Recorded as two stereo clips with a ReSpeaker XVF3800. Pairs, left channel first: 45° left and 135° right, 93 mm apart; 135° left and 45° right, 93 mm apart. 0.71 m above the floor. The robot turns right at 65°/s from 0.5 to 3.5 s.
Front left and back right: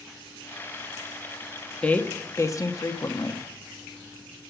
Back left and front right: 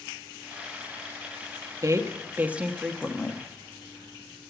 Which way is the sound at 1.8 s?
25° right.